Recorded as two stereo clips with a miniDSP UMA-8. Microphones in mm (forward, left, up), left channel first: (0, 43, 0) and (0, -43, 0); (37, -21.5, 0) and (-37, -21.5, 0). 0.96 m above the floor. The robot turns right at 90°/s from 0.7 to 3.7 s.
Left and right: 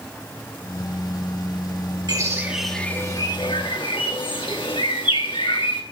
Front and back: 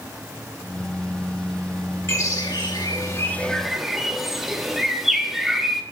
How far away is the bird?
About 1.6 m.